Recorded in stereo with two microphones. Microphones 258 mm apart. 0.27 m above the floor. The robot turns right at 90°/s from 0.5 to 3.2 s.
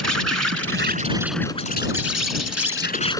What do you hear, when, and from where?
0.0 s an insect: 75° right; by 3.2 s 170° left